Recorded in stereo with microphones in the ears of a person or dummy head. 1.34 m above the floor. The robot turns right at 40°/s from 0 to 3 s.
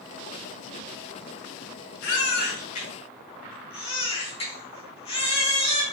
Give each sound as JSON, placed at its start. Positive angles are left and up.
{"t": 2.0, "sound": "a baby crying", "side_deg": 65, "distance_m": 0.9}